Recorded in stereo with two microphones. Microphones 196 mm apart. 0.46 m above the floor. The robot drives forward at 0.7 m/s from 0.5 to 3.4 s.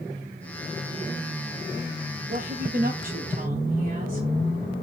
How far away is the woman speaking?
About 1.7 m.